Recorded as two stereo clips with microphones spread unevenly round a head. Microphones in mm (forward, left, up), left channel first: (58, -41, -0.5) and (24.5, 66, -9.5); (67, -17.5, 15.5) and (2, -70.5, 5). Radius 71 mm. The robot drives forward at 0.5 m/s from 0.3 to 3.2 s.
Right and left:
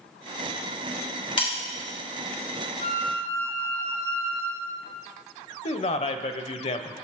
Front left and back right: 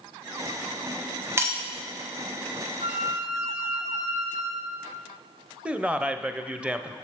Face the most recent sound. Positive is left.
turn(degrees=-60)